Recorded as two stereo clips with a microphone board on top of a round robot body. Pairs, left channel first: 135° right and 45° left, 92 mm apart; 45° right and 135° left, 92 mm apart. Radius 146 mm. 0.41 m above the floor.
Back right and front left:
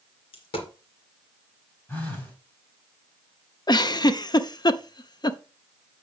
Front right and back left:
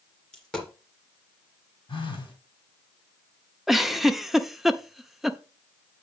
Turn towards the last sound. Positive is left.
turn(degrees=-140)